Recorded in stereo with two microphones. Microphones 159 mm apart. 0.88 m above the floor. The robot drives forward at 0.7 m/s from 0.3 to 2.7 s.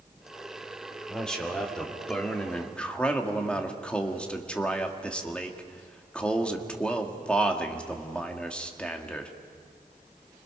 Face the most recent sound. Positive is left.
turn(degrees=5)  # may be behind; listen again after turning